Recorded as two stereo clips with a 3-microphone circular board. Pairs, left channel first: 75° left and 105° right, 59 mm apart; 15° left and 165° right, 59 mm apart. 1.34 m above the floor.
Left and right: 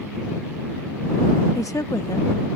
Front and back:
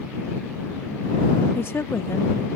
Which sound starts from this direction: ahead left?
A woman speaking, at 1.6 s.